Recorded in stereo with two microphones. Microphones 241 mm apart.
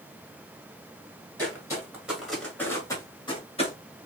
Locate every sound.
1.4 s footsteps: 15° right (ahead or behind), 1.5 m; by 3.7 s 30° left (ahead or behind), 1.5 m